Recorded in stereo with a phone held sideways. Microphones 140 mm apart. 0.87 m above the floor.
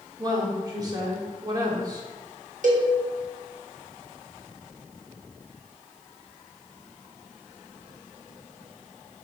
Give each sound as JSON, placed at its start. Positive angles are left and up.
{"t": 0.2, "sound": "a woman speaking", "side_deg": -30, "distance_m": 1.9}
{"t": 2.6, "sound": "a cowbell", "side_deg": -65, "distance_m": 1.3}